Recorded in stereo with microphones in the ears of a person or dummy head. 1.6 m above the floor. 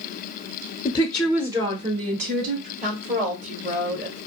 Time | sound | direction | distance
0.8 | a woman speaking | 25° left (ahead or behind) | 0.6 m
2.8 | a woman speaking | 45° right (ahead or behind) | 1.6 m